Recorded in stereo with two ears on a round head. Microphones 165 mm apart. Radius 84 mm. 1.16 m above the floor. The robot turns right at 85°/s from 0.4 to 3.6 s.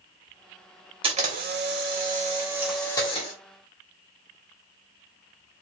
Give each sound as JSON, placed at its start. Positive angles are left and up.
{"t": 1.0, "sound": "a camera shutter", "azimuth_deg": -145, "distance_m": 1.3}